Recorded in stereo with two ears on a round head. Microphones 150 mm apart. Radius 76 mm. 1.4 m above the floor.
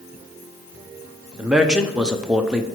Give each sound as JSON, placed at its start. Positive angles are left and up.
{"t": 1.4, "sound": "a man speaking", "side_deg": -5, "distance_m": 0.6}